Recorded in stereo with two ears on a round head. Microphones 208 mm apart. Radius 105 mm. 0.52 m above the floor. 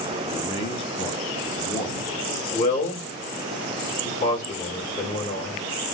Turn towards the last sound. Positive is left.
turn(degrees=35)  # may be behind; listen again after turning